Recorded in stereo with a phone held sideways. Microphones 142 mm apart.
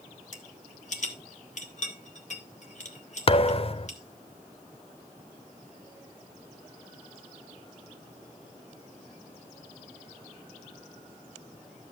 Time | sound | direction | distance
0.3 | a rattle | 55° left (ahead or behind) | 1.7 m
3.3 | a thud | 40° left (ahead or behind) | 0.5 m